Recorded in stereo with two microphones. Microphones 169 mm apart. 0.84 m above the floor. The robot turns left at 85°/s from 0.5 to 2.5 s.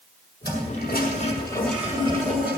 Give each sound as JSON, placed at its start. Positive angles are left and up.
{"t": 0.4, "sound": "a toilet flushing", "azimuth_deg": 105, "distance_m": 6.5}